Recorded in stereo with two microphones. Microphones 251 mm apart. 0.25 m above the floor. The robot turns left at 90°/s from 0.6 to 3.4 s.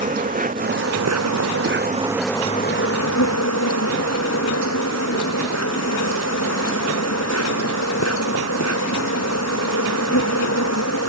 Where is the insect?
30° right; by 11.1 s 75° left.